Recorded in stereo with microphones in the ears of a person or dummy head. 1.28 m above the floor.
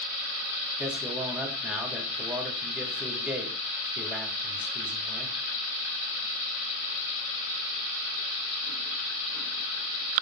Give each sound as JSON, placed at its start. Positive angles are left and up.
{"t": 0.8, "sound": "a man speaking", "side_deg": -10, "distance_m": 3.0}